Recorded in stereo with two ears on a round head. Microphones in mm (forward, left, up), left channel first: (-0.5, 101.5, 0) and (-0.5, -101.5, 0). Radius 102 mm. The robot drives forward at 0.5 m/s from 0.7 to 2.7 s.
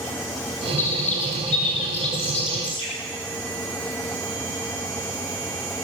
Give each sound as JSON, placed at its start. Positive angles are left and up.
{"t": 0.8, "sound": "a bird", "side_deg": 35, "distance_m": 3.5}